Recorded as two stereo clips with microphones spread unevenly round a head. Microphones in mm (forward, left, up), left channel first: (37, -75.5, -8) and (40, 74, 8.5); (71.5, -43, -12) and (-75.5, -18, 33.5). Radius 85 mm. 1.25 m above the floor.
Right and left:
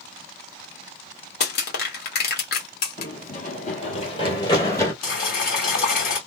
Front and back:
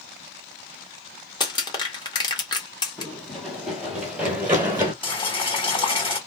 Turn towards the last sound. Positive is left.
turn(degrees=-65)